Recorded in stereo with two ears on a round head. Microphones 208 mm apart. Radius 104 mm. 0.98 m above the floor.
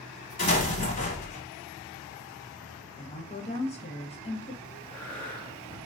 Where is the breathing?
5° left (ahead or behind), 1.0 m.